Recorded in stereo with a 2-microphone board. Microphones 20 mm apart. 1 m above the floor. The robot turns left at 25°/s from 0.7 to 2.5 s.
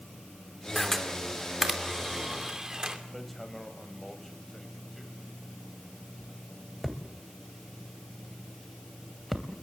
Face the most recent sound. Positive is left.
turn(degrees=15)  # may be behind; listen again after turning